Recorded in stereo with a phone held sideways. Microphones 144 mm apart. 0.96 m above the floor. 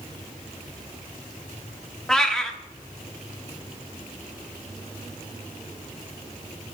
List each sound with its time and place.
2.1 s a cat meowing: 5° left (ahead or behind), 0.8 m